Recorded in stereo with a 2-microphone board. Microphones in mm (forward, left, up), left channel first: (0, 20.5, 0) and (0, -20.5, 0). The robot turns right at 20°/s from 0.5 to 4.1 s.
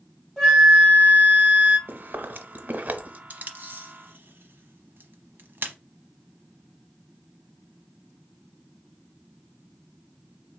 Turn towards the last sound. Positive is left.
turn(degrees=-60)  # may be behind; listen again after turning